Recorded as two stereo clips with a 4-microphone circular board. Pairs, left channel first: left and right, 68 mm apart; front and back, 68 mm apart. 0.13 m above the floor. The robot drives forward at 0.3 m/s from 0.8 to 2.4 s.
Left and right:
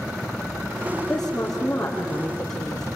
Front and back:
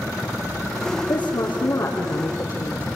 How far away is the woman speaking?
About 5 m.